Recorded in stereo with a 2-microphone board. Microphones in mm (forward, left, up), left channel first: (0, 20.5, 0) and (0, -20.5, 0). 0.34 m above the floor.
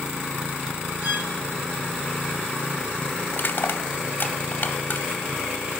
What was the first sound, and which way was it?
A violin, 65° right (ahead or behind).